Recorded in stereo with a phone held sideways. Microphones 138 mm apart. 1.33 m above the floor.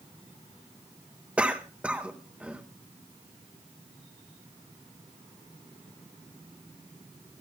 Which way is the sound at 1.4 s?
10° right (ahead or behind).